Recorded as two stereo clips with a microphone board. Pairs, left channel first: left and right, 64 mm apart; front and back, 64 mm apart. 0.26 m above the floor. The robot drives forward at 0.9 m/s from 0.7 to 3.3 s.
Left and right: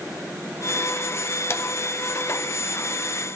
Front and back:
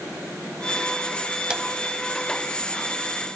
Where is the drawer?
110° left, 0.7 m; by 1.6 s 120° left, 0.7 m.